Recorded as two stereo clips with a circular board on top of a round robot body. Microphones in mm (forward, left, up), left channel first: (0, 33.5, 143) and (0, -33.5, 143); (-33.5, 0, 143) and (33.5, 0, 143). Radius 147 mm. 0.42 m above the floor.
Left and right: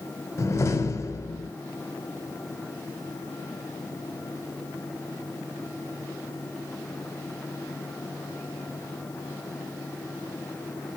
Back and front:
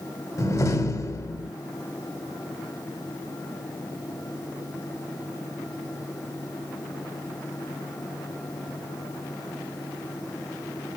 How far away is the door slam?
About 2.5 m.